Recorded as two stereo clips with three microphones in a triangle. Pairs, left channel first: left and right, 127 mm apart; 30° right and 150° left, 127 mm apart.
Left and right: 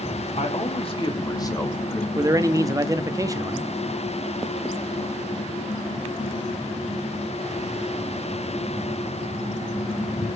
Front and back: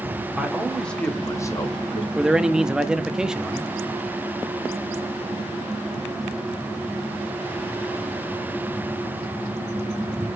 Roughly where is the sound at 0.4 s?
Ahead left.